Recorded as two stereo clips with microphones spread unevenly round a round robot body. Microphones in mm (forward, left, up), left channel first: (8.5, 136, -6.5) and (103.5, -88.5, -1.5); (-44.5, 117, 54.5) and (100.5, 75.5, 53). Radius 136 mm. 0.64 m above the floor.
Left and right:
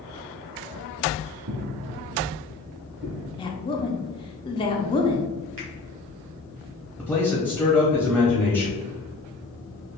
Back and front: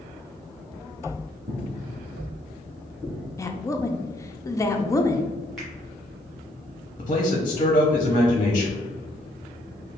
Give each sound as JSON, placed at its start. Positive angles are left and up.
{"t": 1.5, "sound": "footsteps", "azimuth_deg": -80, "distance_m": 1.0}
{"t": 3.4, "sound": "a woman speaking", "azimuth_deg": 135, "distance_m": 0.5}
{"t": 5.6, "sound": "a finger snap", "azimuth_deg": -105, "distance_m": 1.3}
{"t": 7.0, "sound": "a man speaking", "azimuth_deg": -150, "distance_m": 0.7}